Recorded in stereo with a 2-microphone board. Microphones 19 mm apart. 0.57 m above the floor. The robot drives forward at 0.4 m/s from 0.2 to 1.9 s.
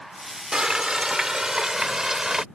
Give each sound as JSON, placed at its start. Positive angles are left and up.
{"t": 0.5, "sound": "frying", "side_deg": -40}